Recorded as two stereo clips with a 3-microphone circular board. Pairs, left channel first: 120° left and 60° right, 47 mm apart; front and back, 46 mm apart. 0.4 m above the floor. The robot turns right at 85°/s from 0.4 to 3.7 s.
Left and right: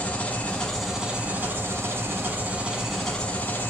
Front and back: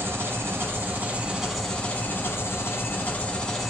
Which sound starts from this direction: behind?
An engine running, at 0.0 s.